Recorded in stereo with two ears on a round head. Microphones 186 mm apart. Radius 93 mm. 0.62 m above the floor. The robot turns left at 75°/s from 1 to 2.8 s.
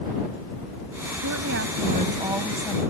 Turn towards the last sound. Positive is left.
turn(degrees=160)